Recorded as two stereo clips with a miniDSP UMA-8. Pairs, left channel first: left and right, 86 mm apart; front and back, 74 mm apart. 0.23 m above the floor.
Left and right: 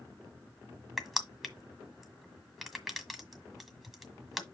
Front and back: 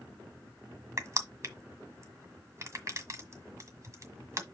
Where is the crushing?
Straight behind, 1.6 m.